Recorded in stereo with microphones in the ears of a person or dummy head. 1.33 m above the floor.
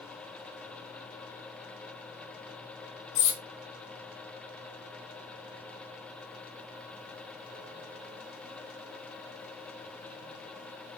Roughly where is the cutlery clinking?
Left.